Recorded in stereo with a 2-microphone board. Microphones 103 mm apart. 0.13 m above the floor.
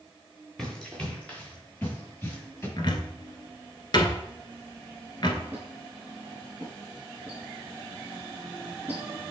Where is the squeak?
15° right (ahead or behind), 4 m.